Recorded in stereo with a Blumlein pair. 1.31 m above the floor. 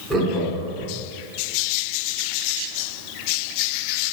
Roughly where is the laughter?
Ahead.